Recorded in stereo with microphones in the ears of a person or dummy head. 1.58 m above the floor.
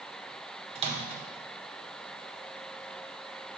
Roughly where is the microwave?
Right.